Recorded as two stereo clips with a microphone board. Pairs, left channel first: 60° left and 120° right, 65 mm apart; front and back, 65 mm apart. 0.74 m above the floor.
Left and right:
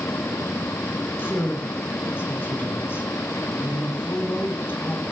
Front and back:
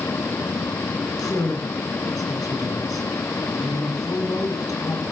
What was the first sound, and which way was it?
A woman speaking, 5° left.